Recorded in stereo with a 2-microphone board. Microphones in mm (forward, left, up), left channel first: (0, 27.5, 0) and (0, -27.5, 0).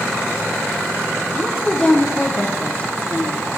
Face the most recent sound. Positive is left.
turn(degrees=25)  # may be behind; listen again after turning